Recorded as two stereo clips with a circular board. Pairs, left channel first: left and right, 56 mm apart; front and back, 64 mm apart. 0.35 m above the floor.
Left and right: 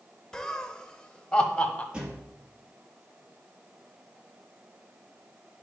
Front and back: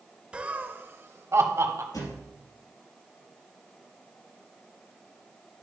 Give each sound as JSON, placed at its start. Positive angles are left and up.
{"t": 0.3, "sound": "laughter", "azimuth_deg": 145, "distance_m": 0.9}
{"t": 1.9, "sound": "a thud", "azimuth_deg": -15, "distance_m": 3.5}